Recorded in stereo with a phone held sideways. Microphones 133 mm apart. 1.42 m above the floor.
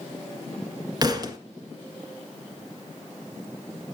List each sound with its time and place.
1.0 s a thud: 35° right (ahead or behind), 1.6 m